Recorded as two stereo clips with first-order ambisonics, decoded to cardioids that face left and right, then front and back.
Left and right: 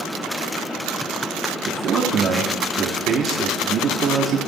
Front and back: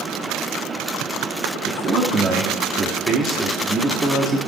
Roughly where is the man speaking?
Behind right.